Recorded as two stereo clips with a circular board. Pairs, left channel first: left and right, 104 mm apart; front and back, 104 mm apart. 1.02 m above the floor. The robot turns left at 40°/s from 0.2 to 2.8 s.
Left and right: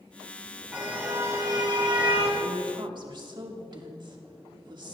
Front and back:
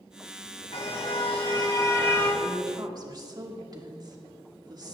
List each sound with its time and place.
0.7 s a car horn: 5° right, 3.5 m; by 2.3 s 70° right, 3.5 m
2.4 s a woman speaking: 115° right, 2.5 m; by 4.9 s 130° right, 2.5 m